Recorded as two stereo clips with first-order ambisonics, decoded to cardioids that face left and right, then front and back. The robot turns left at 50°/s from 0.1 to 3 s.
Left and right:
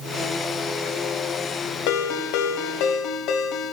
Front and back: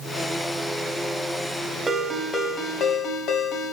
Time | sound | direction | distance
1.9 | a ringtone | 105° left | 1.3 m